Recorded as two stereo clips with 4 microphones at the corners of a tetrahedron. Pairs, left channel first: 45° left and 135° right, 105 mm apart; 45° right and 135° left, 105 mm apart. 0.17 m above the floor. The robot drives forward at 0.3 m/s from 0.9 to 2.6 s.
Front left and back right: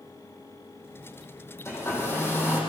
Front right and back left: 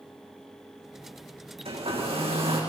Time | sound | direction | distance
1.6 | a hair dryer | 110° left | 7.5 m